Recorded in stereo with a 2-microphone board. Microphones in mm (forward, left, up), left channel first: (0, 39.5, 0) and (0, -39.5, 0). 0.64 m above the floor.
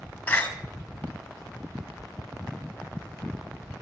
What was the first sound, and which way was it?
A door slam, 25° left (ahead or behind).